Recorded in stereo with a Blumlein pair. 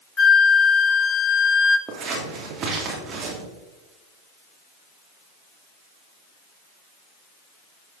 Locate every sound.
0.2 s a flute: 20° left, 0.9 m
1.9 s scissors: 25° right, 2.5 m